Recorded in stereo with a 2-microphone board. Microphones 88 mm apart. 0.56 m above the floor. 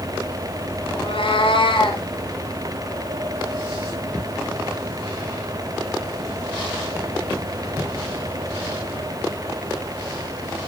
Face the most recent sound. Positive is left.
turn(degrees=90)